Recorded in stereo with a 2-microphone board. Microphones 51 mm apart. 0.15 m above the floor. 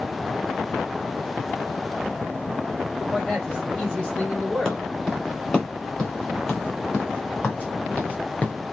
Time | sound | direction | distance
3.1 | a man speaking | 15° left (ahead or behind) | 4.5 m
4.7 | footsteps | 10° left (ahead or behind) | 5 m